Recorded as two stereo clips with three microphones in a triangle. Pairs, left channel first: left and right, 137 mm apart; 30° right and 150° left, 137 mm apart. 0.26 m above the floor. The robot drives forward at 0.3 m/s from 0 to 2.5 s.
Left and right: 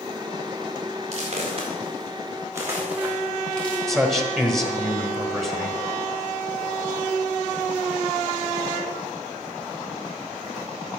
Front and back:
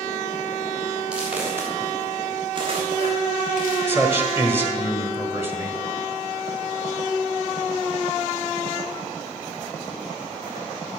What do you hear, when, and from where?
1.1 s footsteps: 125° right, 4 m; by 3.8 s 170° left, 3.5 m
3.9 s a man speaking: 175° left, 1.5 m